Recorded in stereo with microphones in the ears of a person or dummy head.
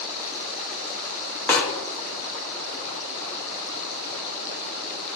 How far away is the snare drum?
About 0.6 m.